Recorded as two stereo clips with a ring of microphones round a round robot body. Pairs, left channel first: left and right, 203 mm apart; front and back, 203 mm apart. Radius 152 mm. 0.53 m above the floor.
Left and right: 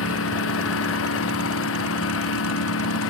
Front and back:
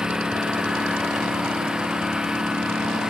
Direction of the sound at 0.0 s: 95° left.